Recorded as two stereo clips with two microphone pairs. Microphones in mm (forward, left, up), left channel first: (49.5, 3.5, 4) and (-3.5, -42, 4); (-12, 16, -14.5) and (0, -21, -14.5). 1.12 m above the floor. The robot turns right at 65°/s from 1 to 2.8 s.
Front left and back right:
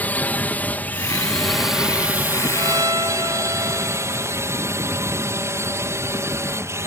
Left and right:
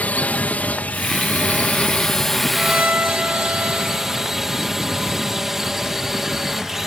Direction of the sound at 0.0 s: 95° left.